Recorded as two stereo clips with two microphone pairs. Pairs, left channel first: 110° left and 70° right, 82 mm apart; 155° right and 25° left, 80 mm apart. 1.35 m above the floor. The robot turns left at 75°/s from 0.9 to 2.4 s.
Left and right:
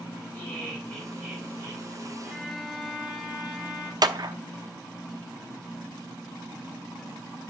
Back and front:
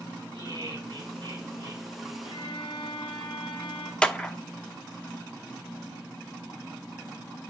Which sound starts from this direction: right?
A clap, at 4.0 s.